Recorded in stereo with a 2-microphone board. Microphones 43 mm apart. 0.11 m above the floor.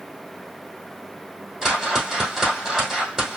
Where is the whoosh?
5° right (ahead or behind), 2.5 m.